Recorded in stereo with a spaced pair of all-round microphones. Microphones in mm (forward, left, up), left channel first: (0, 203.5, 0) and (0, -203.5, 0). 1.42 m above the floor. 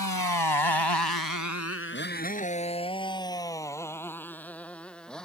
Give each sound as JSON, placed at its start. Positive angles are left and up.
{"t": 0.0, "sound": "a motorcycle", "side_deg": 50}